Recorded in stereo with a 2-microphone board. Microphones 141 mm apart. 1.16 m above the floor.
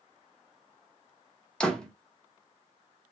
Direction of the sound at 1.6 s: 5° left (ahead or behind).